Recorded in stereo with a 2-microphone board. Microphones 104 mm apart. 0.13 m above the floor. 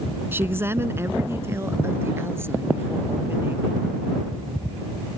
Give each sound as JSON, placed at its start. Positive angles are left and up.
{"t": 0.3, "sound": "a woman speaking", "side_deg": -20}